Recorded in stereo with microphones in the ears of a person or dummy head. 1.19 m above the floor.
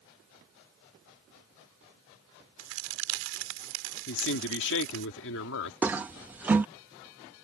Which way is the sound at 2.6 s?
70° right (ahead or behind).